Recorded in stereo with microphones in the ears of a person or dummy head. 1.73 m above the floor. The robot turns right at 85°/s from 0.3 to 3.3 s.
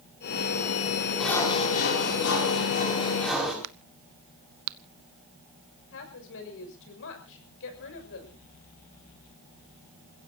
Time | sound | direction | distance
1.2 | sawing | straight ahead | 5.5 m
3.6 | a crack | 80° right | 0.6 m
5.9 | a woman speaking | 70° left (ahead or behind) | 6 m